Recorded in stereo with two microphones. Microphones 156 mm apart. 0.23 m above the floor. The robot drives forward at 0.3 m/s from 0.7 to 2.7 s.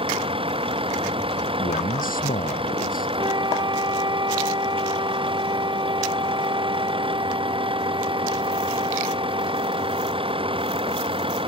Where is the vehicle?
35° right (ahead or behind).